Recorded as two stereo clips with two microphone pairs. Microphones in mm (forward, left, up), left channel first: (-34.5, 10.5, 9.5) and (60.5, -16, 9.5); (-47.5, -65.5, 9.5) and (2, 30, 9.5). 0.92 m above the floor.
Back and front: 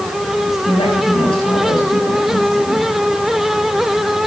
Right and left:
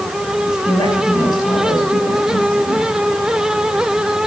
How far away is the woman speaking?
About 5 m.